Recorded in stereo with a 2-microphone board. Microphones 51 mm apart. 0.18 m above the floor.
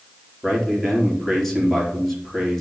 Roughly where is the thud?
No thud in this recording.